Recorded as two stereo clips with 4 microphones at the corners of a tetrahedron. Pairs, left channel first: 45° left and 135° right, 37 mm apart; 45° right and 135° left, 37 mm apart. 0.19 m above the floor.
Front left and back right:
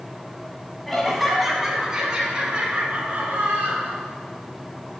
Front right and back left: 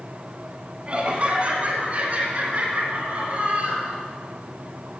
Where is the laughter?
125° left, 1.4 m; by 4.0 s 175° left, 3 m.